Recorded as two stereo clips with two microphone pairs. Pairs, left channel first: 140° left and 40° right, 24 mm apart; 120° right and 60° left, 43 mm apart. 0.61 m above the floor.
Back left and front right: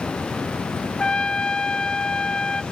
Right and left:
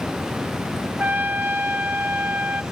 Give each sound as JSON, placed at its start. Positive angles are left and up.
{"t": 1.0, "sound": "a trumpet", "azimuth_deg": 90, "distance_m": 1.0}